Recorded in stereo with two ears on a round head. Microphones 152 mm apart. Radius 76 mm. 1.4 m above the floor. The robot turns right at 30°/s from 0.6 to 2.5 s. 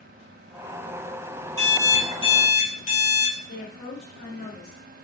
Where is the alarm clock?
25° left (ahead or behind), 1.6 m; by 3.3 s 45° left (ahead or behind), 1.6 m.